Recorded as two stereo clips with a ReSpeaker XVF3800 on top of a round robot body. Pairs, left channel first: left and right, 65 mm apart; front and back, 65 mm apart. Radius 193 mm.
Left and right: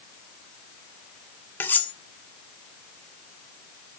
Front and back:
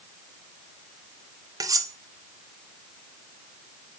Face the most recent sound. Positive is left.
turn(degrees=150)